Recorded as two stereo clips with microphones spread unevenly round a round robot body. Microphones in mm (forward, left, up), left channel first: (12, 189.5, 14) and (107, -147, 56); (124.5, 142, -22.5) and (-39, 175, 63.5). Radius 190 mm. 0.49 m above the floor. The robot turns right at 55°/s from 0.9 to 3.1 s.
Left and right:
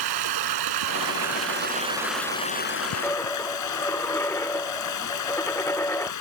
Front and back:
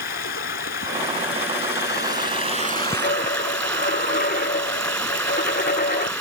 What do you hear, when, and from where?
0.0 s running water: 55° right; by 6.2 s 70° left
3.0 s a dropped coin: 20° left